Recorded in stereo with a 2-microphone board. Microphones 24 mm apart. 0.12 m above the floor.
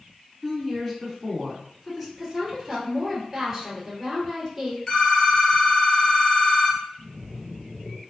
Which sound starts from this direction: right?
A splash, at 7.0 s.